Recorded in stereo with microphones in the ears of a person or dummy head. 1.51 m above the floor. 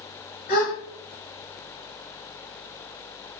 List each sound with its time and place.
0.5 s a gasp: 45° left (ahead or behind), 1.1 m